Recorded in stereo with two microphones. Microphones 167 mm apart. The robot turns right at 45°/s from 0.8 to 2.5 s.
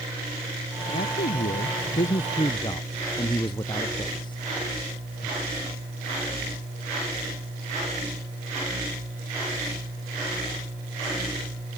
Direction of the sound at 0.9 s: 80° left.